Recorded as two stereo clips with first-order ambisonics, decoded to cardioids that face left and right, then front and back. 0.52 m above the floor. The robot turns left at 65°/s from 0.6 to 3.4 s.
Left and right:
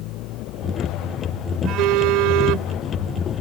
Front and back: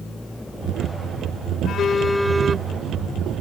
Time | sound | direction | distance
1.6 | a phone buzzing | 50° right | ?